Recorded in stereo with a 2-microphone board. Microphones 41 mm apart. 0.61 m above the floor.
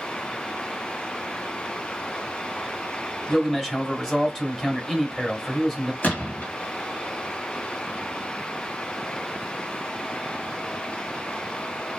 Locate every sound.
3.3 s a man speaking: 10° left (ahead or behind), 1.1 m
6.0 s a gunshot: 40° left (ahead or behind), 1.2 m